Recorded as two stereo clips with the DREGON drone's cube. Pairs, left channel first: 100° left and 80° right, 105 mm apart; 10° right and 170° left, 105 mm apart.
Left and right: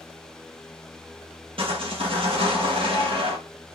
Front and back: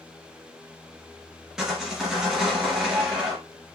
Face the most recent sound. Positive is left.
turn(degrees=-105)